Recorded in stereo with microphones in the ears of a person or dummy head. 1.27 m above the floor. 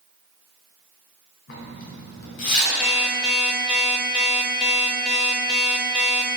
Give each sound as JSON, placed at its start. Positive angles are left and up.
{"t": 1.5, "sound": "a zipper", "side_deg": 65, "distance_m": 1.8}
{"t": 2.8, "sound": "an alarm clock", "side_deg": 5, "distance_m": 1.0}